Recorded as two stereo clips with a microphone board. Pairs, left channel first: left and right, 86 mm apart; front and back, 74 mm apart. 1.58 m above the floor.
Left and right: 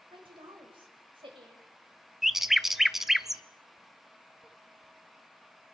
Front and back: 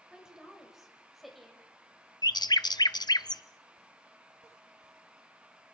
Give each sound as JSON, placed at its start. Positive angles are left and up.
{"t": 0.1, "sound": "a woman speaking", "azimuth_deg": -100, "distance_m": 7.0}
{"t": 2.2, "sound": "a bird", "azimuth_deg": -5, "distance_m": 0.7}